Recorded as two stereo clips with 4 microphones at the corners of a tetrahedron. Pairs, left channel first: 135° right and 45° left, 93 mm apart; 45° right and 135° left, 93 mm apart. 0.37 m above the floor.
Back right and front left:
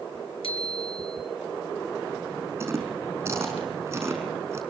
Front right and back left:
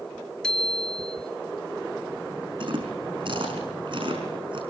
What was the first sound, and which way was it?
A bicycle bell, 125° right.